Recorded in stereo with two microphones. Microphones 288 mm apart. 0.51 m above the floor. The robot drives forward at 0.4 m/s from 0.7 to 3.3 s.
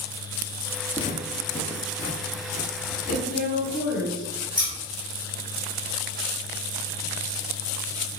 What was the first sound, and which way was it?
Footsteps, 20° left (ahead or behind).